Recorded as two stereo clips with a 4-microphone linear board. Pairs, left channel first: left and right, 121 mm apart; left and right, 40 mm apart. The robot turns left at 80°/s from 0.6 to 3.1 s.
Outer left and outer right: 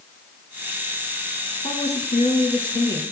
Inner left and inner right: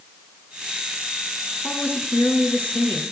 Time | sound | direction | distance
1.6 | a woman speaking | 130° left | 3 m